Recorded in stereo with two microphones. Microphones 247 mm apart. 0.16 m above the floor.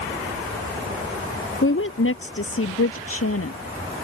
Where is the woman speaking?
55° left (ahead or behind); by 3.6 s 70° left (ahead or behind).